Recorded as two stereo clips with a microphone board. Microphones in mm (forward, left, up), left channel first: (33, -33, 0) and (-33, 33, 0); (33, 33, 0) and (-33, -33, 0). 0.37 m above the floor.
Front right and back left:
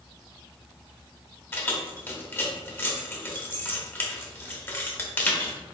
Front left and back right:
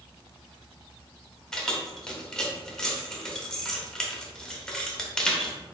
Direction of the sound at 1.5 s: 30° right.